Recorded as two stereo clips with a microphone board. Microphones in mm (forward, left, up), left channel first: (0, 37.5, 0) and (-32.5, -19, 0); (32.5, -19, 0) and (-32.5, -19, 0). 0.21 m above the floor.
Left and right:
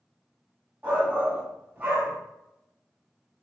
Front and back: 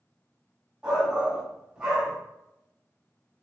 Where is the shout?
125° right, 1.1 m.